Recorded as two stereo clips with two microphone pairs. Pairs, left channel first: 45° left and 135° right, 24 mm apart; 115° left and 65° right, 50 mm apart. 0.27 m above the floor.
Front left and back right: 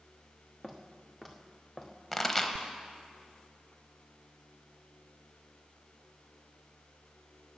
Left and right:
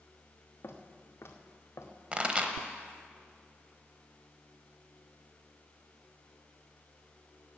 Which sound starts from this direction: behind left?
Footsteps, at 0.6 s.